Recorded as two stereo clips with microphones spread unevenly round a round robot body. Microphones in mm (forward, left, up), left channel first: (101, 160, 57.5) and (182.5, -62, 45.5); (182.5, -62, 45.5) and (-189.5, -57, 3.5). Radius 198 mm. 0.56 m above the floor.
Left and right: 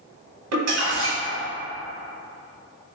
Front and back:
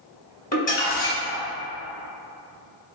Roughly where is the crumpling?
Right.